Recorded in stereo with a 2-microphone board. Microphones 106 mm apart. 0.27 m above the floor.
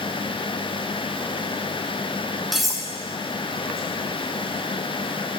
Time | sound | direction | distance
2.5 | cutlery clinking | centre (ahead or behind) | 2.0 m